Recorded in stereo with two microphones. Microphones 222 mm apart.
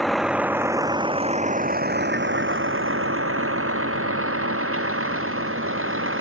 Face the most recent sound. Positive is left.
turn(degrees=-70)  # may be behind; listen again after turning